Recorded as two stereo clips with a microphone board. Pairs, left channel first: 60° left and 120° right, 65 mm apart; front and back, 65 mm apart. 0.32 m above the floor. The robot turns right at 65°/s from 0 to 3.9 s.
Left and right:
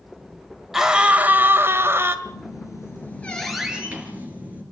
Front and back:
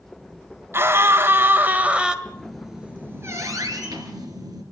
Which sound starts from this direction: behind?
A scream, at 0.7 s.